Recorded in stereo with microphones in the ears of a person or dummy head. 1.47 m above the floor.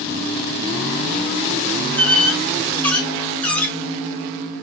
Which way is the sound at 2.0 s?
10° left (ahead or behind).